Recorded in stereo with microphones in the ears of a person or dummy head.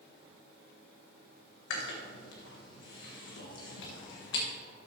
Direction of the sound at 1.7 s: 65° left (ahead or behind).